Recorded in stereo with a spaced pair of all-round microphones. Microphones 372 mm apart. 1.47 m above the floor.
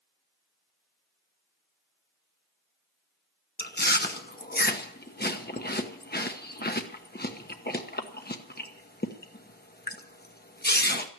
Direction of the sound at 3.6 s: 25° left (ahead or behind).